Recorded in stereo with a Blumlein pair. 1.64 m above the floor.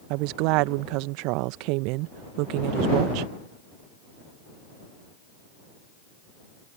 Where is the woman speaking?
45° right.